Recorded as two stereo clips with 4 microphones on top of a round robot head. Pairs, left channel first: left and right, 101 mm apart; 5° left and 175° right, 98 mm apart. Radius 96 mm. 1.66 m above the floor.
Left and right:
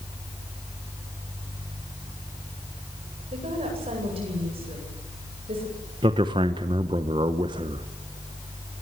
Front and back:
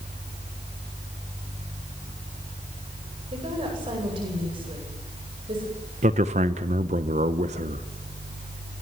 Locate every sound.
3.3 s a woman speaking: 130° right, 9.5 m
6.0 s a man speaking: 150° right, 1.1 m